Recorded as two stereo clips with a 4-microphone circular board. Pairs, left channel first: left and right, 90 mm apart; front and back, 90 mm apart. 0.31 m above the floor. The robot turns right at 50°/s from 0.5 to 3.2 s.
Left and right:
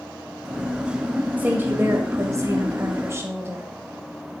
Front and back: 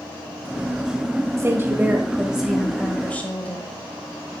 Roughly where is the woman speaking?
Behind right.